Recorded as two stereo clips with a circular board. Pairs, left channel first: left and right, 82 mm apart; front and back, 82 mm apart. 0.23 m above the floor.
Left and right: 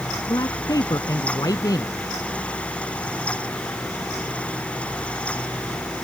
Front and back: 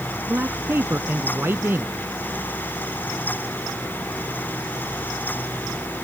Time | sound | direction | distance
0.3 | a man speaking | 120° left | ?